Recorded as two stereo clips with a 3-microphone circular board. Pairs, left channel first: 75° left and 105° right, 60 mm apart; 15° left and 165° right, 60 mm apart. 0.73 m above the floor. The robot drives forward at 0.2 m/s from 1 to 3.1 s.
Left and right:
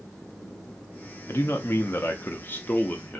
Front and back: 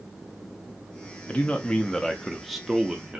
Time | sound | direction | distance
1.3 | a man speaking | 70° left | 0.5 m